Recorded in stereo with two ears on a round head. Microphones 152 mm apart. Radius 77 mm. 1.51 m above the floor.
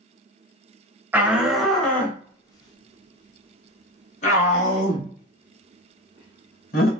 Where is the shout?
10° right (ahead or behind), 1.2 m; by 6.9 s 55° left (ahead or behind), 3.5 m.